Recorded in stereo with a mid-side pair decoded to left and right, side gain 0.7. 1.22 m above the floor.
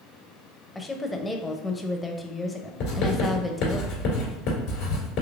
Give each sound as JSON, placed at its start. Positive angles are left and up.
{"t": 0.8, "sound": "a woman speaking", "azimuth_deg": 10, "distance_m": 0.6}
{"t": 2.8, "sound": "writing", "azimuth_deg": 65, "distance_m": 1.9}